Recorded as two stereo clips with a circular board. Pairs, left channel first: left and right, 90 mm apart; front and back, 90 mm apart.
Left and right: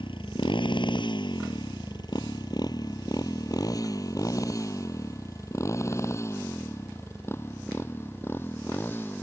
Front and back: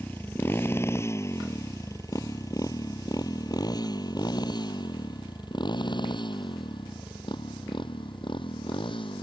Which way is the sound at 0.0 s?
70° left.